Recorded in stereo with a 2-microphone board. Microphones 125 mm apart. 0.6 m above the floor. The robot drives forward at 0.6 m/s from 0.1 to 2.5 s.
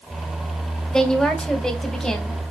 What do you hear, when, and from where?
0.9 s a woman speaking: 5° left (ahead or behind), 2.5 m